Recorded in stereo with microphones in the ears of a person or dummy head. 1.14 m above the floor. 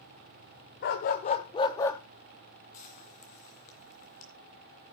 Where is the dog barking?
50° left (ahead or behind), 1.1 m; by 2.0 s 20° left (ahead or behind), 1.4 m.